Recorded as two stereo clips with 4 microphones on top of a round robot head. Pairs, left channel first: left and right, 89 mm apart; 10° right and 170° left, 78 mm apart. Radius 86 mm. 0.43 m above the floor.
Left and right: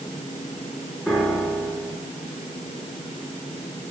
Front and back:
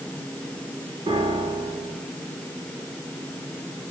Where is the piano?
170° left, 4.5 m.